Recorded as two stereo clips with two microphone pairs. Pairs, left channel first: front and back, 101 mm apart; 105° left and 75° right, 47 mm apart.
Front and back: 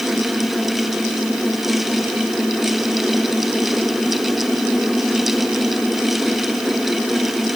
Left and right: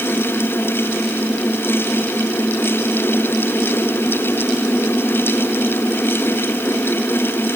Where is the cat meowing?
I don't hear a cat meowing.